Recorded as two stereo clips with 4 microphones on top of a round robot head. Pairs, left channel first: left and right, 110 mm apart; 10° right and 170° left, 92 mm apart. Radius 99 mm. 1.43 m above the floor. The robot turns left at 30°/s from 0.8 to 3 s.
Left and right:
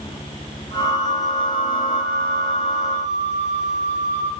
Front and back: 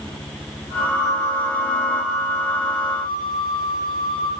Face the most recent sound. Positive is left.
turn(degrees=-90)